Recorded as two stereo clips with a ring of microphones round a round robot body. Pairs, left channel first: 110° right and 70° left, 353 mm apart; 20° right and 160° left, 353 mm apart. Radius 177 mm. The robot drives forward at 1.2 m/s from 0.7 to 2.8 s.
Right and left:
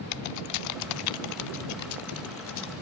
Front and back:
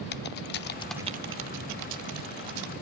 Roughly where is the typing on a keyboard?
Right.